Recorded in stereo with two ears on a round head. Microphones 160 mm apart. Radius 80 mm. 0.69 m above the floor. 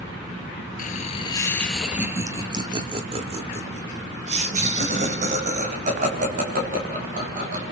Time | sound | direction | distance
0.8 | laughter | 45° left (ahead or behind) | 1.0 m